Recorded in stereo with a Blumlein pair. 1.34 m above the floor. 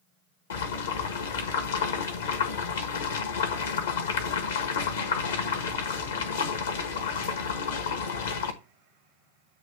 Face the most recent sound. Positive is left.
turn(degrees=65)